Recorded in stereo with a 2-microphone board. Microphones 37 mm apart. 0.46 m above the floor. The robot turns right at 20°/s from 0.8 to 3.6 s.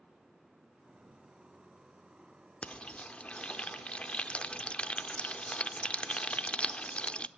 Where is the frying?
35° left (ahead or behind), 0.6 m; by 7.3 s 30° left (ahead or behind), 0.6 m.